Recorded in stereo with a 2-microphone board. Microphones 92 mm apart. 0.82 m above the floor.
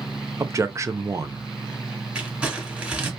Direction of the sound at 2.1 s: 15° right (ahead or behind).